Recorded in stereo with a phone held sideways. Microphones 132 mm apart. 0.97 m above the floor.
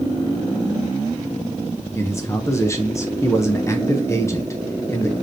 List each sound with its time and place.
2.0 s a man speaking: 20° left (ahead or behind), 0.9 m